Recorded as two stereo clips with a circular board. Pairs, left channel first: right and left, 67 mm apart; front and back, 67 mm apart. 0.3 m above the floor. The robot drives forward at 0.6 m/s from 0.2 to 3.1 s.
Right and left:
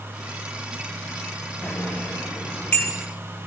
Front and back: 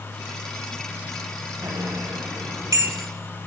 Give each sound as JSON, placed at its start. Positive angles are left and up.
{"t": 1.6, "sound": "a bicycle bell", "azimuth_deg": -160, "distance_m": 4.0}